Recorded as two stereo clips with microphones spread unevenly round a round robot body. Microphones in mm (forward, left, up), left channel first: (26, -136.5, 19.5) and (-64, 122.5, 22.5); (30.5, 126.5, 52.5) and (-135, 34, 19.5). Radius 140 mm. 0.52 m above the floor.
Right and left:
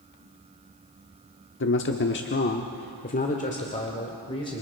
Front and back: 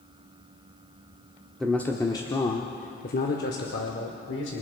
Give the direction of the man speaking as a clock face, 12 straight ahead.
2 o'clock.